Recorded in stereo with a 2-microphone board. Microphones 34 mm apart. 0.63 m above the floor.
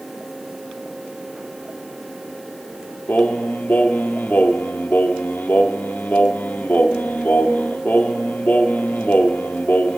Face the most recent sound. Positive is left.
turn(degrees=60)  # may be behind; listen again after turning